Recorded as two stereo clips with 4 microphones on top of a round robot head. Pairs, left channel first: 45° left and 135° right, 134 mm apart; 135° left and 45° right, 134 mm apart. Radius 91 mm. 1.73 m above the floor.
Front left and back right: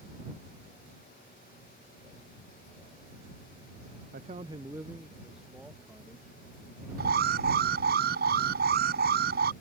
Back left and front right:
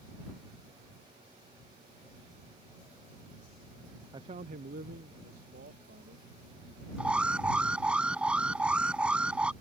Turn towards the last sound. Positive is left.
turn(degrees=-125)